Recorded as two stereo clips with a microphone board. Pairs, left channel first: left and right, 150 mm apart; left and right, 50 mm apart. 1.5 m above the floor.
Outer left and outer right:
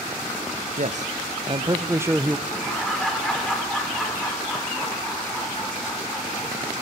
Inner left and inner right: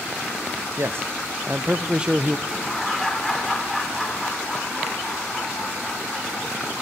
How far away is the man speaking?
About 1.0 m.